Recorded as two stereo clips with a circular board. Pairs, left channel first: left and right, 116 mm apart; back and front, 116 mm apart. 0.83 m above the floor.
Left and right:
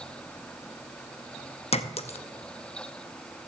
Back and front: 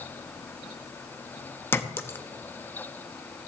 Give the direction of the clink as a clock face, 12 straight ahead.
8 o'clock.